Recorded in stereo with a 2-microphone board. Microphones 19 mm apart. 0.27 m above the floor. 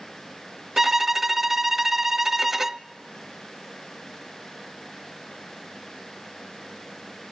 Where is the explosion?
No explosion in this recording.